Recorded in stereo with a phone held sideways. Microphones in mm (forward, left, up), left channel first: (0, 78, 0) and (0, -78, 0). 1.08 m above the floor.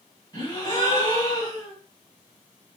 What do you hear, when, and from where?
0.3 s a gasp: 25° left (ahead or behind), 2 m